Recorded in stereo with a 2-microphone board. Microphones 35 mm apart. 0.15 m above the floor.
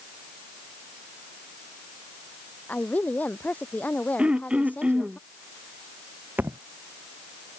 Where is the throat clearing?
35° right (ahead or behind).